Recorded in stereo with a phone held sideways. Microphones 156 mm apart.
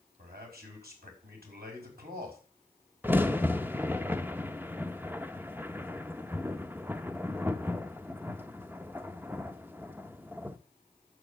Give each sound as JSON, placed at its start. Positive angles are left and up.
{"t": 0.2, "sound": "a man speaking", "side_deg": -80, "distance_m": 5.0}
{"t": 3.0, "sound": "a crack", "side_deg": -15, "distance_m": 0.7}